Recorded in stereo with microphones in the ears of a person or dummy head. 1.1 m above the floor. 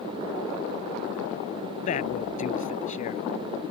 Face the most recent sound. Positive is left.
turn(degrees=45)  # may be behind; listen again after turning